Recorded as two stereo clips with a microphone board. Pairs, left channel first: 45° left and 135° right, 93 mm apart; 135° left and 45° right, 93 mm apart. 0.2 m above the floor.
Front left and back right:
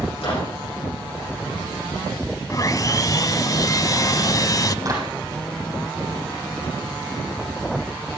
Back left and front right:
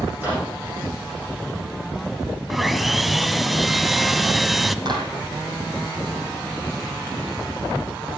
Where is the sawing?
45° left, 0.5 m.